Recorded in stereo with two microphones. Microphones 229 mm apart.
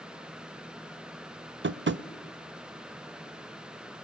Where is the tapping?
55° right (ahead or behind), 0.5 m.